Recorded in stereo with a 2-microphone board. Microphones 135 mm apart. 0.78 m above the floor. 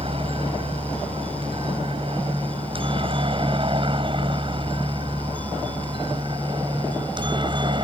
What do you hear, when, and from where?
0.0 s a helicopter: 40° right (ahead or behind); by 7.8 s 35° right (ahead or behind)